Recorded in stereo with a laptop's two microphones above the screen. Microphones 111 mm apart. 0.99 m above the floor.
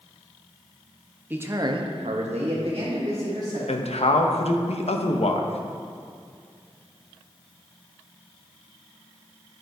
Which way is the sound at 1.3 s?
15° right (ahead or behind).